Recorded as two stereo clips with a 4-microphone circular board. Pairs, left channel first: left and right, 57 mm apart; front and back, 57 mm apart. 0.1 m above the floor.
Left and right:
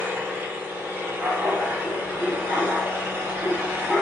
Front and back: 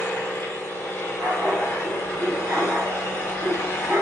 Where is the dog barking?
170° right, 0.9 m.